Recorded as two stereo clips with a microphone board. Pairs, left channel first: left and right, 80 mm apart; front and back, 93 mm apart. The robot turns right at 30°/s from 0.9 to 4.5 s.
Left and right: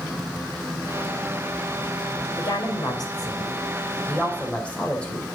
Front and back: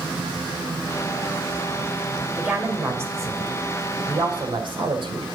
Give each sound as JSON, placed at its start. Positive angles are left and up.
{"t": 2.4, "sound": "a woman speaking", "azimuth_deg": 100, "distance_m": 2.5}